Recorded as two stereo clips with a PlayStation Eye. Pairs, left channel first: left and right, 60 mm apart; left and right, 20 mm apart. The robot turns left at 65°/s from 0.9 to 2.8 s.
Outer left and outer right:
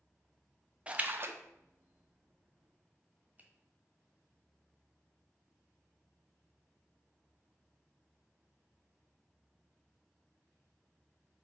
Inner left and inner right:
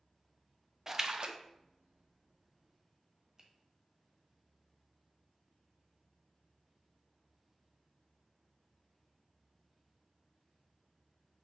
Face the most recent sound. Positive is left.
turn(degrees=-30)  # may be behind; listen again after turning